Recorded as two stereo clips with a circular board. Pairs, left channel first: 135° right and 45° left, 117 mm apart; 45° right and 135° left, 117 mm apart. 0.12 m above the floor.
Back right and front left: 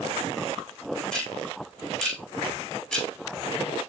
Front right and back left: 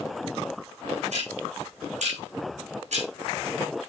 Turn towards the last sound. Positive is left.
turn(degrees=140)